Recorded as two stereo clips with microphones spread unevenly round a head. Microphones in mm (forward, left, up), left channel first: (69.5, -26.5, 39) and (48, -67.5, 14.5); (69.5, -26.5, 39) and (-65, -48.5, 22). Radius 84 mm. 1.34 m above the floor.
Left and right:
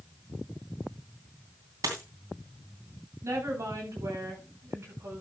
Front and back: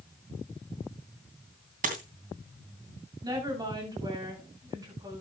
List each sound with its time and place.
1.8 s a dropped coin: 145° right, 2.5 m
3.2 s a woman speaking: 110° right, 8 m